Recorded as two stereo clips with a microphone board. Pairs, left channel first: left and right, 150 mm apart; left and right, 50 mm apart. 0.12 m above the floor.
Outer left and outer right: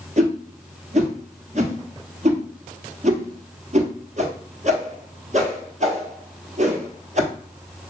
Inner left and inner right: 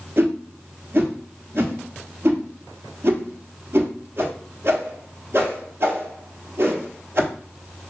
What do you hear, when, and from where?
0.2 s a whoosh: 55° right (ahead or behind), 1.0 m